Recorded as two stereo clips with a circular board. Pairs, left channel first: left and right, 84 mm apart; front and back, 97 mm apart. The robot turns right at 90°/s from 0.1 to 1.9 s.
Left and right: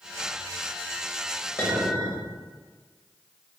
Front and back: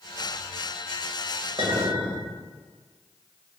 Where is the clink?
150° left, 1.0 m; by 2.2 s straight behind, 1.0 m.